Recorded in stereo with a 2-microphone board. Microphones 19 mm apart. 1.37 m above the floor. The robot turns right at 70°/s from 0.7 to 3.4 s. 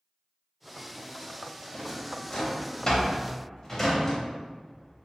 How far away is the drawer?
About 0.9 m.